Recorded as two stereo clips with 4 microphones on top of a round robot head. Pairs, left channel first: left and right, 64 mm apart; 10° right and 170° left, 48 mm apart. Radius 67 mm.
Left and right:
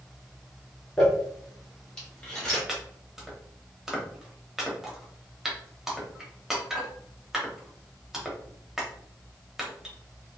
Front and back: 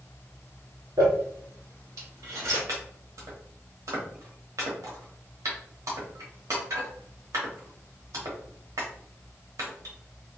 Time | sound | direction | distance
1.0 | crumpling | 165° left | 1.2 m
2.7 | chopping | 175° right | 0.9 m